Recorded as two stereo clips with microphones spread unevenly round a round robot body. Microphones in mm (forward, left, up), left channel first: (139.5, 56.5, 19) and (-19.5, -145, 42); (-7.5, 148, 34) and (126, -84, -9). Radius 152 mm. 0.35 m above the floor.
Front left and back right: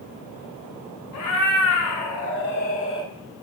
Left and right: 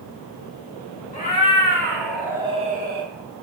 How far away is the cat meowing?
About 1.4 m.